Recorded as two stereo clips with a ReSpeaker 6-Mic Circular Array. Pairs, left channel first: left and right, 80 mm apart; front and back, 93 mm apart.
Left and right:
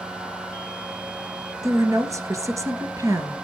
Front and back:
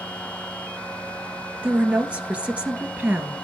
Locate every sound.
1.6 s a woman speaking: 110° right, 2.0 m